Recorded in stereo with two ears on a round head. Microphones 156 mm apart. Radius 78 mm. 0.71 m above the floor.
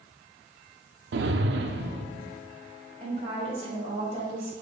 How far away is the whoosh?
About 0.5 m.